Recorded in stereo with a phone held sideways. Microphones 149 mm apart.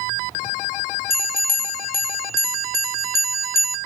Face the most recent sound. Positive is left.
turn(degrees=80)